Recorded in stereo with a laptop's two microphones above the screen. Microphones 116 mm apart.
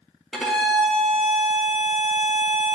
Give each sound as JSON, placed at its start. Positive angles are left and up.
{"t": 0.3, "sound": "a violin", "side_deg": 5, "distance_m": 1.4}